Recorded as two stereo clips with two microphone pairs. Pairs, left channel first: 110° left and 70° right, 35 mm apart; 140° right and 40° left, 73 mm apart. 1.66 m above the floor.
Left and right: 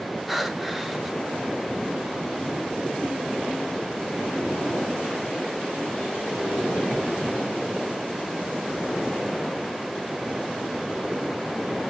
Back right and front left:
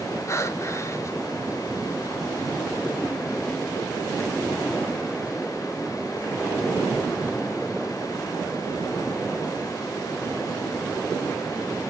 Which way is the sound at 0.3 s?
155° right.